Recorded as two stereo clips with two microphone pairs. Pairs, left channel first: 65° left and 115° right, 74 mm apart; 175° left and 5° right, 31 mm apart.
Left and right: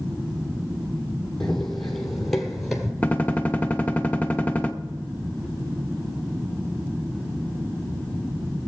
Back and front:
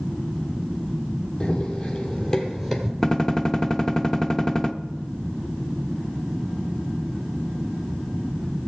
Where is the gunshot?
115° left, 0.7 m.